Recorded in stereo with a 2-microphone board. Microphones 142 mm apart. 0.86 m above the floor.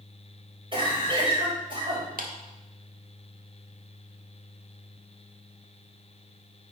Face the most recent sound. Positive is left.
turn(degrees=-85)